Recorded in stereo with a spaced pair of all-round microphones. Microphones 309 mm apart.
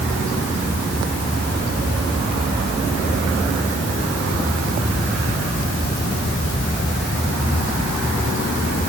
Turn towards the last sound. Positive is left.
No sound to turn to.